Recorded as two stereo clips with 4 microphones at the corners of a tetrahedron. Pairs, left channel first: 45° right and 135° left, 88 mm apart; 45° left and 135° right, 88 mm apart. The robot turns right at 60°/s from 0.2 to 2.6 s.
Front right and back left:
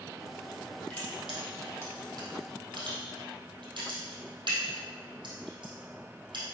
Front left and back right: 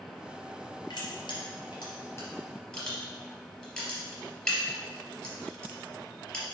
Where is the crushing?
25° left, 3 m; by 6.4 s 125° left, 3 m.